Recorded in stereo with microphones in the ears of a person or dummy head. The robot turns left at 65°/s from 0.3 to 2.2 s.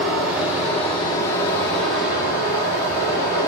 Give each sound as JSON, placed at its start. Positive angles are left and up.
{"t": 0.0, "sound": "running water", "side_deg": -10, "distance_m": 0.9}